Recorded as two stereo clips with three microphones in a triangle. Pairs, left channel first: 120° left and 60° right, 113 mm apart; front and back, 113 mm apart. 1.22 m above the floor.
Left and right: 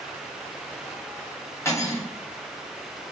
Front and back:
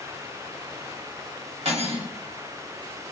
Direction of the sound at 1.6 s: 175° right.